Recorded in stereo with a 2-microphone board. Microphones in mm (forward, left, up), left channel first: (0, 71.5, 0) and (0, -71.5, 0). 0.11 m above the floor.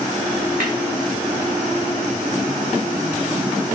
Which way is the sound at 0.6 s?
75° right (ahead or behind).